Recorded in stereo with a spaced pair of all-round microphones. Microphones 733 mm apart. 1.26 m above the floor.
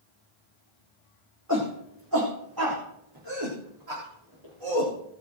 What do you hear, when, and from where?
1.5 s a shout: 20° right (ahead or behind), 3.5 m; by 4.9 s 40° right (ahead or behind), 5 m